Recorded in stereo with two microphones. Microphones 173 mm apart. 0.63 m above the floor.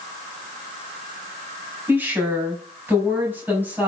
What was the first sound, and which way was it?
A woman speaking, 10° right (ahead or behind).